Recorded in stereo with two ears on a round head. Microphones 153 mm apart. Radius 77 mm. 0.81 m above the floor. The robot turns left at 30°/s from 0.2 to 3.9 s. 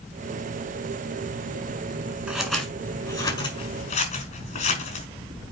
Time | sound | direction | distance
2.3 | scissors | 5° right (ahead or behind) | 3.5 m